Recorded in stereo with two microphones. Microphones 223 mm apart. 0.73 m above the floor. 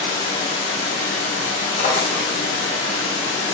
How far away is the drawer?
About 1.4 m.